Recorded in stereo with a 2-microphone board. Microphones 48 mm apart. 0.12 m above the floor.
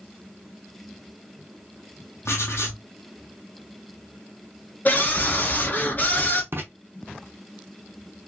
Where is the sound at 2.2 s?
75° left (ahead or behind), 1.2 m.